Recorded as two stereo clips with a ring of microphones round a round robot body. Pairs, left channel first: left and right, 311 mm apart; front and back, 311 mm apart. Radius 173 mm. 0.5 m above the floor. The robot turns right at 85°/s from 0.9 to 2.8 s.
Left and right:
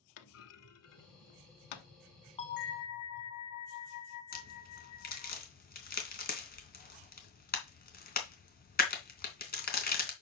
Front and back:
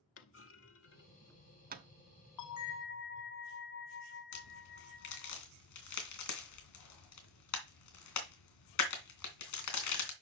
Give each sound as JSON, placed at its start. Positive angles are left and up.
{"t": 0.2, "sound": "a clunk", "azimuth_deg": 50, "distance_m": 1.0}
{"t": 2.4, "sound": "a bell", "azimuth_deg": 15, "distance_m": 1.3}
{"t": 4.3, "sound": "a crack", "azimuth_deg": 30, "distance_m": 3.0}